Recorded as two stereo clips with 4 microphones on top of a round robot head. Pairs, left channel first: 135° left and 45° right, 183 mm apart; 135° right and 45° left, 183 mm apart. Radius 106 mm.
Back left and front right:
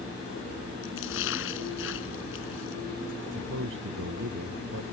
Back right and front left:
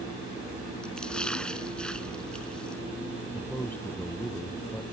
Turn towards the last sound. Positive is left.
turn(degrees=-55)